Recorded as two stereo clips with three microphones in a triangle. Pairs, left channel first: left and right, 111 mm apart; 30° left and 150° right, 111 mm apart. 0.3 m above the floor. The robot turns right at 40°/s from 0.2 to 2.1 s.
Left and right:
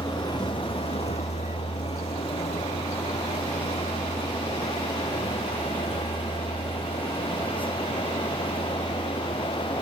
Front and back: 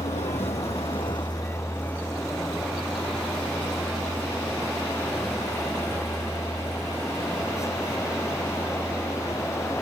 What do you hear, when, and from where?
0.0 s a vehicle: 30° left; by 9.8 s 130° left